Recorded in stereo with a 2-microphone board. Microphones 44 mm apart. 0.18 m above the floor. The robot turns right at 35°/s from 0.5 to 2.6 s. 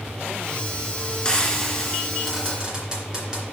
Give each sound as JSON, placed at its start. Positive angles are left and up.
{"t": 1.2, "sound": "frying", "side_deg": 20, "distance_m": 2.5}